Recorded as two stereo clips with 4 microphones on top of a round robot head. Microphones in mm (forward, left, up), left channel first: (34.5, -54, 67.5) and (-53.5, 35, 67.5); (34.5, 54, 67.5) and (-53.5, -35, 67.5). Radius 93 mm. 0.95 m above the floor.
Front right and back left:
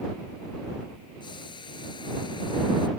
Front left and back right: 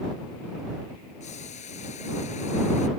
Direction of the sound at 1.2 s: 10° left.